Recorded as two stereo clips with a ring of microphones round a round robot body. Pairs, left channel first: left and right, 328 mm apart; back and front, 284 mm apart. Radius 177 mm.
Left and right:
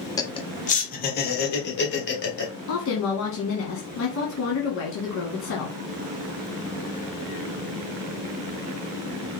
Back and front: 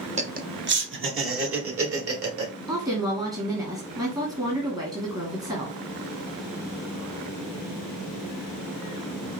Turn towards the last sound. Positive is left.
turn(degrees=70)